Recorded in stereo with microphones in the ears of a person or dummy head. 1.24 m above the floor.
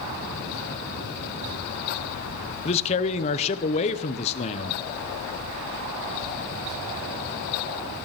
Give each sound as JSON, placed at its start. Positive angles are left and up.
{"t": 2.6, "sound": "a man speaking", "side_deg": 35, "distance_m": 0.8}